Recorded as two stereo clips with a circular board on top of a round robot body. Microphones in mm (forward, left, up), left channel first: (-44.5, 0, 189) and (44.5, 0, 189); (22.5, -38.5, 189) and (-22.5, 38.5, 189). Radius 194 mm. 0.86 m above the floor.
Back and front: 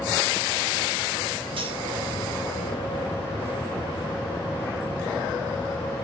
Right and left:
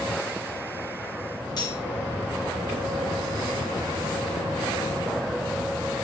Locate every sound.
1.6 s cutlery clinking: 20° right, 4.5 m